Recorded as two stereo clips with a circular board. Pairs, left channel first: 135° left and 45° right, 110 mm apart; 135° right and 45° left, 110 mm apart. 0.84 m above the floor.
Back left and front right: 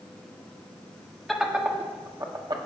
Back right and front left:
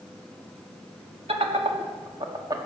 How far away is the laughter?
About 2.0 m.